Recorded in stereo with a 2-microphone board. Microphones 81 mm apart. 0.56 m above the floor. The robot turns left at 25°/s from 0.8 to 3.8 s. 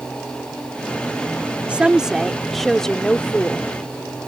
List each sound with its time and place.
1.7 s a woman speaking: 160° right; by 3.7 s 150° left